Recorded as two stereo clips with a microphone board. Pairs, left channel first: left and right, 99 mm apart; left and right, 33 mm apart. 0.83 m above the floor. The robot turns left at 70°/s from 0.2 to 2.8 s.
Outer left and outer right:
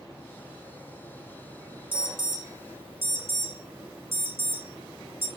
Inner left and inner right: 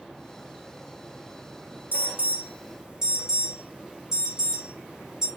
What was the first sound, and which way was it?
An alarm, 65° right (ahead or behind).